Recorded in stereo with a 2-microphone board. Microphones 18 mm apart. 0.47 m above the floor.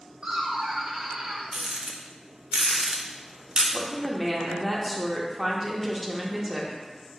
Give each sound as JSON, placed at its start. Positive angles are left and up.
{"t": 0.2, "sound": "laughter", "side_deg": -45, "distance_m": 1.3}
{"t": 1.5, "sound": "a rattle", "side_deg": -50, "distance_m": 0.6}
{"t": 3.7, "sound": "a woman speaking", "side_deg": -5, "distance_m": 0.7}